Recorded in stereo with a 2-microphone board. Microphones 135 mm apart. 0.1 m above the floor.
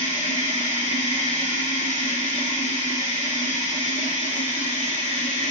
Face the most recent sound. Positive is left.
turn(degrees=65)  # may be behind; listen again after turning